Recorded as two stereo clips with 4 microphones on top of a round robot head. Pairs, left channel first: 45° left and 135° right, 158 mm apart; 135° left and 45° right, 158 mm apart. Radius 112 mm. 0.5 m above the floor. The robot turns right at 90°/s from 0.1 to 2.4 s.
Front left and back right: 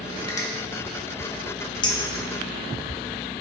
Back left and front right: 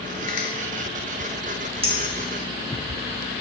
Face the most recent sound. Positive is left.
turn(degrees=45)